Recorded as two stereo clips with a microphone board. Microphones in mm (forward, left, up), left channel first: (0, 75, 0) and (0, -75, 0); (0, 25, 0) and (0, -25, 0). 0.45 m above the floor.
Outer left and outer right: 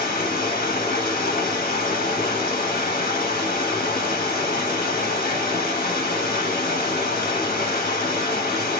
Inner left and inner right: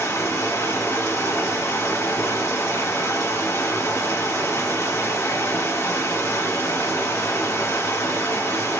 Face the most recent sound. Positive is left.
turn(degrees=75)  # may be behind; listen again after turning